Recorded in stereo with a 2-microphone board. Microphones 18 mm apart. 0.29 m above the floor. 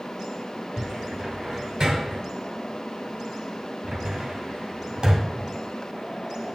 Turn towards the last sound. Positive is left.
turn(degrees=-40)  # may be behind; listen again after turning